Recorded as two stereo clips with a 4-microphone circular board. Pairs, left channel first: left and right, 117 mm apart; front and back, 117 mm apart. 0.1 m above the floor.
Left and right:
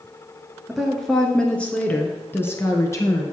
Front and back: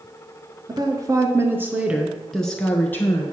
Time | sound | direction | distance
0.7 | a woman speaking | straight behind | 1.3 m